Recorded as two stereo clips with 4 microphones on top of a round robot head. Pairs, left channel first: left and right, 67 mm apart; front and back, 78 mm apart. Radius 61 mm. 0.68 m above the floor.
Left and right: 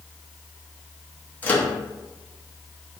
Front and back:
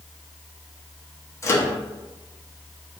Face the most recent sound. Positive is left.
turn(degrees=35)